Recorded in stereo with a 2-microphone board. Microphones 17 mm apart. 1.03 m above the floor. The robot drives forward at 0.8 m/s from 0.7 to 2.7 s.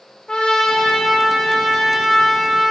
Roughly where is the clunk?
No clunk in this recording.